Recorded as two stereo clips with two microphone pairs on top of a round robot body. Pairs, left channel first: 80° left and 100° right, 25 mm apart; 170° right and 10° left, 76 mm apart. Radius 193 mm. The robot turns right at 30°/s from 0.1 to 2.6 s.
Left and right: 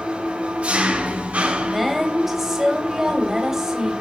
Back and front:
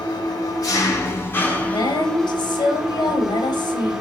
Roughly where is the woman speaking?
Behind.